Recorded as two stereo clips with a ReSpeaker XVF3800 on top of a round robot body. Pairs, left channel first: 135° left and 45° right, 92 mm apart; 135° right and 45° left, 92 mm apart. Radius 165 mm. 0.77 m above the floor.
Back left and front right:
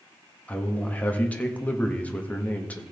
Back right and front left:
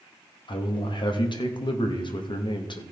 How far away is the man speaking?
About 1.8 m.